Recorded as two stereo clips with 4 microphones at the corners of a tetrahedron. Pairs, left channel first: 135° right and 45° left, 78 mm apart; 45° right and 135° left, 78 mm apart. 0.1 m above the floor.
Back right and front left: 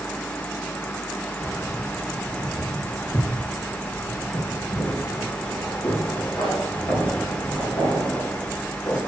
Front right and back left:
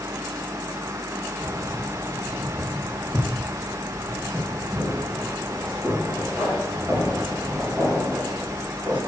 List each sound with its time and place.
1.4 s keys jangling: straight behind, 1.8 m; by 9.0 s 140° right, 6.5 m